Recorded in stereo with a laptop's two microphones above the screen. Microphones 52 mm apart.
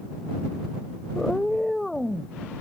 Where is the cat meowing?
15° left (ahead or behind); by 2.4 s 5° left (ahead or behind).